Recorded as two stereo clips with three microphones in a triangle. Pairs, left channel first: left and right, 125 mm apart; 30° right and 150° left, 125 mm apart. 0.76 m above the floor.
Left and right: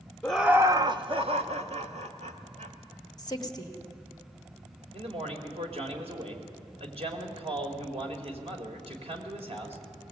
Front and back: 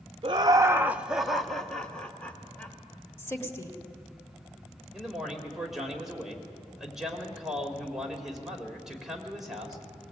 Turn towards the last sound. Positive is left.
turn(degrees=-125)